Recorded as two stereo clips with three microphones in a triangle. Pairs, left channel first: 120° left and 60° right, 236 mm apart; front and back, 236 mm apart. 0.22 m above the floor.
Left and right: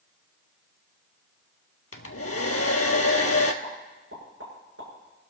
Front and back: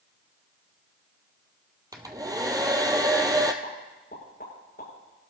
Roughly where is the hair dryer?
Left.